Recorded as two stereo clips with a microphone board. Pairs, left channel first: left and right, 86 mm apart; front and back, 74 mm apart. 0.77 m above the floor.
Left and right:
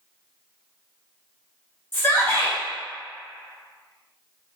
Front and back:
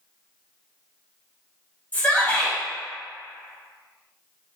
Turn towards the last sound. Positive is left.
turn(degrees=50)